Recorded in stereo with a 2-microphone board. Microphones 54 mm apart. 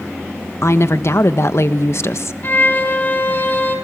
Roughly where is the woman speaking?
Left.